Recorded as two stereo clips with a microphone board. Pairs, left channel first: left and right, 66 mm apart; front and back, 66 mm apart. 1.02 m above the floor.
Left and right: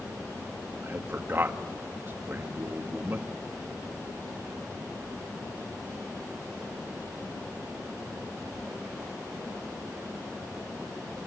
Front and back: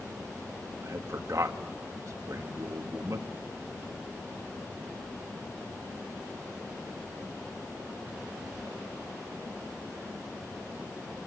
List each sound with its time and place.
0.8 s a man speaking: 145° right, 1.6 m